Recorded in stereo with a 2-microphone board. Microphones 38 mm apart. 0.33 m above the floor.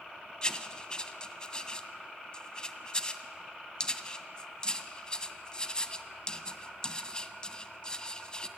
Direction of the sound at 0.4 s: 20° left (ahead or behind).